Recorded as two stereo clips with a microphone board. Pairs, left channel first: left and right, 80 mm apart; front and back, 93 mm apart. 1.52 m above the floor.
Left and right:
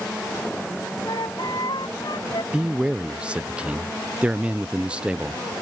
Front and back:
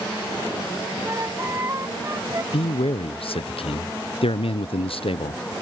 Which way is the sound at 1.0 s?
120° left.